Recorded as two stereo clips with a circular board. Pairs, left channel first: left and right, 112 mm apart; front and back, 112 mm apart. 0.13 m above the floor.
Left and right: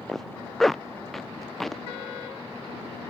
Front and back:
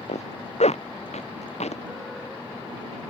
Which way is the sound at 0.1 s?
Straight ahead.